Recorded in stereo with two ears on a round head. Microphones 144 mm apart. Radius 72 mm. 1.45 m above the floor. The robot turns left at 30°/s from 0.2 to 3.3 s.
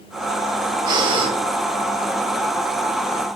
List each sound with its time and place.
0.9 s breathing: 25° right (ahead or behind), 1.1 m; by 1.3 s 35° right (ahead or behind), 1.1 m